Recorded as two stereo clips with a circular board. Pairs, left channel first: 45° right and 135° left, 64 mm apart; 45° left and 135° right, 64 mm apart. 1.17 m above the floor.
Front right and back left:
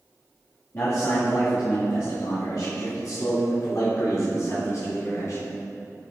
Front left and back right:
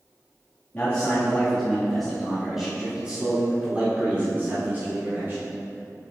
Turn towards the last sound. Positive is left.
turn(degrees=-80)